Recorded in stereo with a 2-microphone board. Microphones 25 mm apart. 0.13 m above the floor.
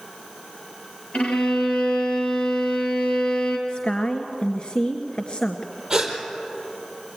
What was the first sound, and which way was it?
A violin, 60° left (ahead or behind).